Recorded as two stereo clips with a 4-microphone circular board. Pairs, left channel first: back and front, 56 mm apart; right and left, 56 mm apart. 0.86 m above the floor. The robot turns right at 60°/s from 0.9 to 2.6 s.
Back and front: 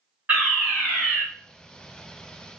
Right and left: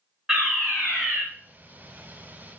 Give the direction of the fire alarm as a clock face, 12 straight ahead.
12 o'clock.